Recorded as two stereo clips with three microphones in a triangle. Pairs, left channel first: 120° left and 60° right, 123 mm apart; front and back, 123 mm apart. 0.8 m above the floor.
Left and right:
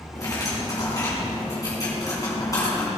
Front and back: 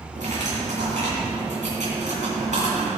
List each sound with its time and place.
0.1 s cutlery clinking: straight behind, 4.5 m